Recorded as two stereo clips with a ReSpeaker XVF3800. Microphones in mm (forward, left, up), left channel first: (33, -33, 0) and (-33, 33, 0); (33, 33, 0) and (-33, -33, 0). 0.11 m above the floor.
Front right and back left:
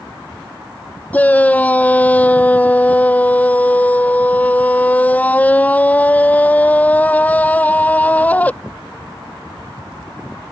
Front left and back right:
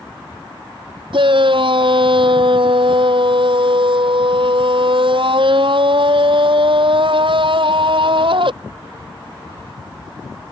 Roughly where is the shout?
Behind right.